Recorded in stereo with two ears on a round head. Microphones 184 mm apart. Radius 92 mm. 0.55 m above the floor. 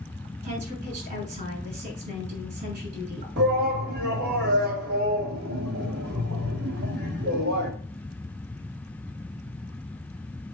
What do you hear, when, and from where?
0.4 s a woman speaking: 45° right (ahead or behind), 5.5 m
3.4 s a shout: 55° right (ahead or behind), 2.5 m